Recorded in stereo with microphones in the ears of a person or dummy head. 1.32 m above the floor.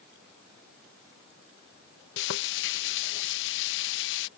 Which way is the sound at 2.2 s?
65° left (ahead or behind).